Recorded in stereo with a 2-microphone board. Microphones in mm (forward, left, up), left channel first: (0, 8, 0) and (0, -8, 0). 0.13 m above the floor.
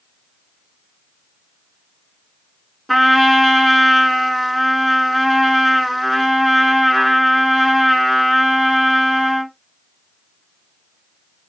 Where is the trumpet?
15° left (ahead or behind), 1.0 m.